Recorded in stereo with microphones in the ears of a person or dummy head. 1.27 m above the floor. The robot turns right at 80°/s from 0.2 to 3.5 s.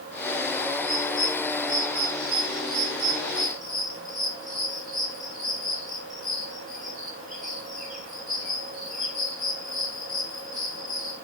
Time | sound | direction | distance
0.8 | a bird | 30° left (ahead or behind) | 6 m